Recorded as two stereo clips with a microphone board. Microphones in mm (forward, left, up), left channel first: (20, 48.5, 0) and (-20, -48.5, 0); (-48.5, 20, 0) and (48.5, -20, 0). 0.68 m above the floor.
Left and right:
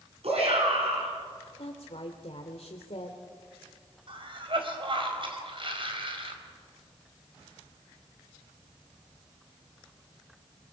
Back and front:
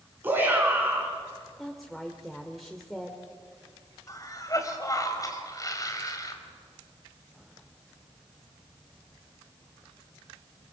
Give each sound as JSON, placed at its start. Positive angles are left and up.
{"t": 0.2, "sound": "a shout", "azimuth_deg": -95, "distance_m": 7.5}
{"t": 1.6, "sound": "a woman speaking", "azimuth_deg": 70, "distance_m": 1.7}
{"t": 4.1, "sound": "a cough", "azimuth_deg": -145, "distance_m": 4.0}